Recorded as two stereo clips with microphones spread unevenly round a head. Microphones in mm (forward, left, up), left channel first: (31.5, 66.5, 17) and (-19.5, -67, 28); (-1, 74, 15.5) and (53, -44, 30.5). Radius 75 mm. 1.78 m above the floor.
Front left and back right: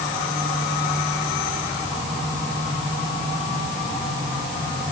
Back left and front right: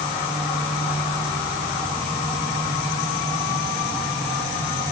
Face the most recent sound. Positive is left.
No sound to turn to.